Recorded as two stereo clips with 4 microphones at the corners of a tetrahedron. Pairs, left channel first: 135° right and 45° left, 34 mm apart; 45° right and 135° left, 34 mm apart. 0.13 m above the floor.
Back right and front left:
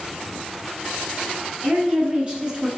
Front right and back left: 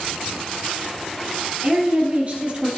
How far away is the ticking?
I don't hear ticking.